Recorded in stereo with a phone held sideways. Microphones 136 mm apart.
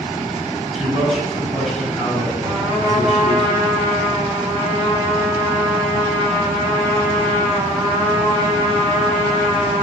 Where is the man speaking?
Centre (ahead or behind), 4.5 m.